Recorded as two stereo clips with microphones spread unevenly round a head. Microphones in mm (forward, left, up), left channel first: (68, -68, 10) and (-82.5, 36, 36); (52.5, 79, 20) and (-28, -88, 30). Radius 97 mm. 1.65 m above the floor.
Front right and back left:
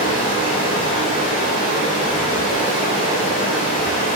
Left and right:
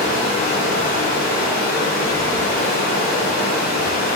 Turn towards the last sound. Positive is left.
turn(degrees=25)